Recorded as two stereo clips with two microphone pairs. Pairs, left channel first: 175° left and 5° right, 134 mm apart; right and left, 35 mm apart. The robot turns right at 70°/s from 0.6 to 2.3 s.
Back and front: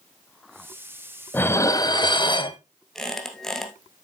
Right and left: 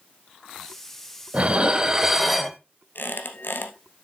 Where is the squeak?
100° right, 1.3 m.